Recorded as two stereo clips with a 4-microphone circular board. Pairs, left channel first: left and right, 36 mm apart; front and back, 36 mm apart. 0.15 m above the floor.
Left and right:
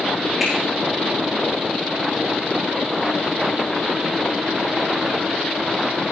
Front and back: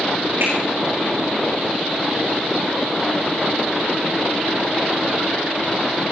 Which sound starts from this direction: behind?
A finger snap, at 0.4 s.